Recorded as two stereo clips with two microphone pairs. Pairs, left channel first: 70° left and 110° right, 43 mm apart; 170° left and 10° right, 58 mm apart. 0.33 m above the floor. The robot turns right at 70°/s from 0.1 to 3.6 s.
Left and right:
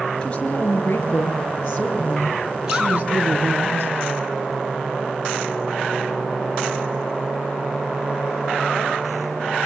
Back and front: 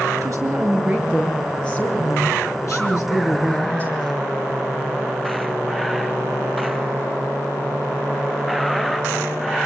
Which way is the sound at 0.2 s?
Straight ahead.